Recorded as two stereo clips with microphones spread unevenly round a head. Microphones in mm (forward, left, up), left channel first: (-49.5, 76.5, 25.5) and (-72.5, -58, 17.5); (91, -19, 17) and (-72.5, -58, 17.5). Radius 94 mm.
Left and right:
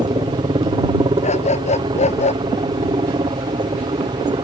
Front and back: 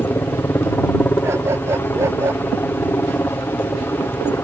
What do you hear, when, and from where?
0.0 s a helicopter: 60° right
1.2 s a dog barking: 115° left